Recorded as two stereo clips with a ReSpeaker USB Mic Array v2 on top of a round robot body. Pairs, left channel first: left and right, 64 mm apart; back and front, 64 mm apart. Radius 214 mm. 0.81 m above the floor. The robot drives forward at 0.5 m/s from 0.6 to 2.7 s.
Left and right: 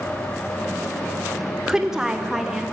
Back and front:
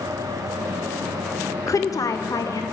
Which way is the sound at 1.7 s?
170° right.